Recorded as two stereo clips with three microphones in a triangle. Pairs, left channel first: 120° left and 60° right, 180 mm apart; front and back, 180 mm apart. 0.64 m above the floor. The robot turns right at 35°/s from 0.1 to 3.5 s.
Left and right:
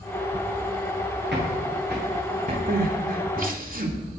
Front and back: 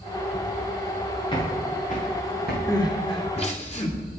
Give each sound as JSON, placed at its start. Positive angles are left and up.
{"t": 1.3, "sound": "footsteps", "azimuth_deg": -65, "distance_m": 8.5}
{"t": 2.7, "sound": "crying", "azimuth_deg": -70, "distance_m": 2.0}